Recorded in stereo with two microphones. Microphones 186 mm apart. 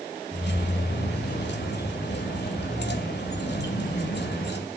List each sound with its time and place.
0.3 s keys jangling: 65° left (ahead or behind), 2.5 m